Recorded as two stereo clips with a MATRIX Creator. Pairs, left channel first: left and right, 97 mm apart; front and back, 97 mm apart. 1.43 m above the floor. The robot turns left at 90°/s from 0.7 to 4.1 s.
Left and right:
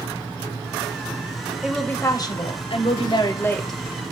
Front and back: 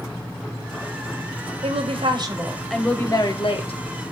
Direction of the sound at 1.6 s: 170° right.